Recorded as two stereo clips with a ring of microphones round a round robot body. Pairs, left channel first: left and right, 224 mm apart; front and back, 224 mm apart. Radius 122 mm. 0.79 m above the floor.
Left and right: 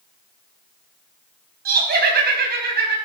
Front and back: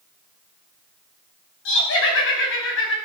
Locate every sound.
1.6 s laughter: 45° right, 4.5 m